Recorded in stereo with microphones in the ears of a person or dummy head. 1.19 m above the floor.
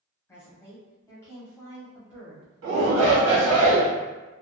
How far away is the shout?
About 1.0 m.